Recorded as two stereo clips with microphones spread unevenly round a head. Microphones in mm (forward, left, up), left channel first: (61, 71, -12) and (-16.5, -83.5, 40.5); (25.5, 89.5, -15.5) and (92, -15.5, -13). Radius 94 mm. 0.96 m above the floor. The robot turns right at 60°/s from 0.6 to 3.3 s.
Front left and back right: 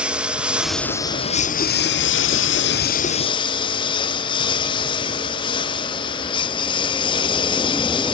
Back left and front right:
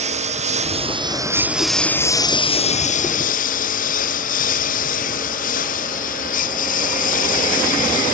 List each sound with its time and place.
0.0 s a lawn mower: 35° right; by 8.1 s 130° left